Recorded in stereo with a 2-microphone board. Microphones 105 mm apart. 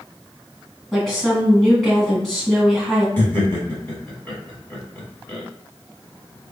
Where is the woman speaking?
5° left (ahead or behind), 1.9 m.